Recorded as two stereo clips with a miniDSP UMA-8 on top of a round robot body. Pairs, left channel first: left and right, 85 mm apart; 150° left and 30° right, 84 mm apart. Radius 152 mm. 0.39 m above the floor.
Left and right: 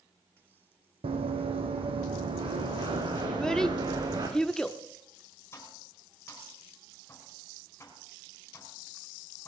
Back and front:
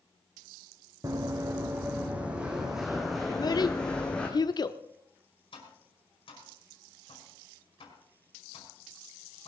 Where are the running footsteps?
85° right, 1.8 m; by 4.3 s 135° right, 2.5 m.